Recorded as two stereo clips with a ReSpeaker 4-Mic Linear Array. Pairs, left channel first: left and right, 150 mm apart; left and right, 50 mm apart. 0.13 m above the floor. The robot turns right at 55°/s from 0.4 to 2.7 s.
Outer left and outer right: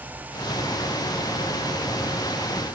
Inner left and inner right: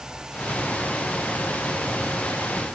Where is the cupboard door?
No cupboard door in this recording.